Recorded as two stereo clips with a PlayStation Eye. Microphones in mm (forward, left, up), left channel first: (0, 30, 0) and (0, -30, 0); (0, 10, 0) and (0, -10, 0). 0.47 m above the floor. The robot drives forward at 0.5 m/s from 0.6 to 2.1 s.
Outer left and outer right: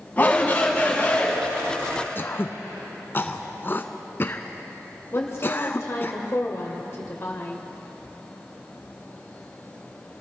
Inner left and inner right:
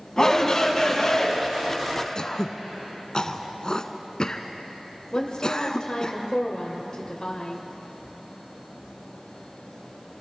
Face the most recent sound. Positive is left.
turn(degrees=45)  # may be behind; listen again after turning